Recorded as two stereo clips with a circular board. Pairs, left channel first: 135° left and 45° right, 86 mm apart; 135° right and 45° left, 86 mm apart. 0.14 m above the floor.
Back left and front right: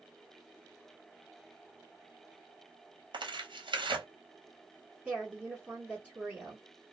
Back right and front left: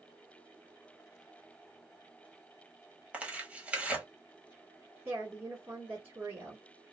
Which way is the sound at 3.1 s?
30° right.